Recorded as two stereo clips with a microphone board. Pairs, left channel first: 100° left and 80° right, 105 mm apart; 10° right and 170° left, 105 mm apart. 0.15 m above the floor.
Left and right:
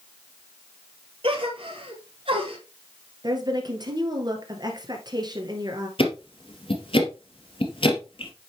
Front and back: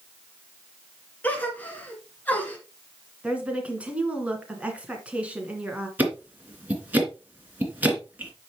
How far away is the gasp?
About 1.9 m.